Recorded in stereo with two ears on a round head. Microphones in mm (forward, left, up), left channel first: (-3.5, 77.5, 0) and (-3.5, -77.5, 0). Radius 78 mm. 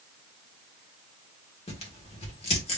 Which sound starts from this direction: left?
Tearing paper, at 1.7 s.